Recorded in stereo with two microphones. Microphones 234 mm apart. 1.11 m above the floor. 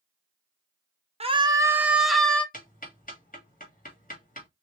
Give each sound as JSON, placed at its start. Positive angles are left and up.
{"t": 1.2, "sound": "a scream", "side_deg": -25, "distance_m": 0.7}
{"t": 2.5, "sound": "ticking", "side_deg": 35, "distance_m": 1.8}